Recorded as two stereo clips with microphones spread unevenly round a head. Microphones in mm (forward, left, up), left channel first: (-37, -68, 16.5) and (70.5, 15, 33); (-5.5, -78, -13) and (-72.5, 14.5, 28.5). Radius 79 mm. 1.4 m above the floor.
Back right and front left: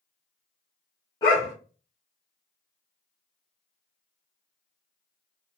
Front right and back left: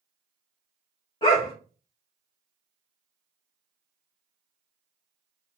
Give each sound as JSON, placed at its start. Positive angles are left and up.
{"t": 1.2, "sound": "a dog barking", "azimuth_deg": -95, "distance_m": 0.9}